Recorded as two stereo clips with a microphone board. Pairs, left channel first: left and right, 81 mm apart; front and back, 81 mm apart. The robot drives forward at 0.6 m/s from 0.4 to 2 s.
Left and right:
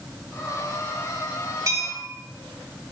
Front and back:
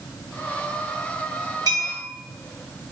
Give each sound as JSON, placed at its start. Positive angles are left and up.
{"t": 1.7, "sound": "a bell", "azimuth_deg": -140, "distance_m": 1.4}